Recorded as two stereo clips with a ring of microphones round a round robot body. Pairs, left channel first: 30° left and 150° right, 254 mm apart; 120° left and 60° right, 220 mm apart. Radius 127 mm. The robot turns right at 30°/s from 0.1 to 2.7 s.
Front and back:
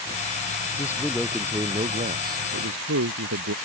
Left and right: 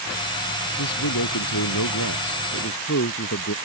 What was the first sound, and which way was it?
A man speaking, 105° left.